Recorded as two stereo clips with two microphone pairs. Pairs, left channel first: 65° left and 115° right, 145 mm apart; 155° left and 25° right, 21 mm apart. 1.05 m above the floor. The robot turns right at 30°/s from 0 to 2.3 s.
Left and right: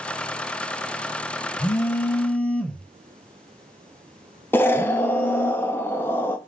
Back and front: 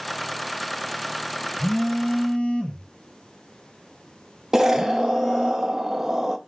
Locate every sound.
1.6 s a phone buzzing: 125° left, 0.6 m; by 5.5 s 145° left, 0.6 m
4.5 s an explosion: 10° left, 0.5 m